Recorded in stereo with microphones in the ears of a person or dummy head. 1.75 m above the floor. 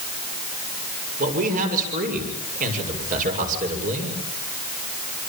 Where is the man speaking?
40° right (ahead or behind), 6.5 m.